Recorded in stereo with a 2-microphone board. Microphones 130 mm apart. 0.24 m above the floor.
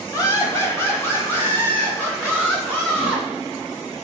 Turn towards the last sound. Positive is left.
turn(degrees=10)  # may be behind; listen again after turning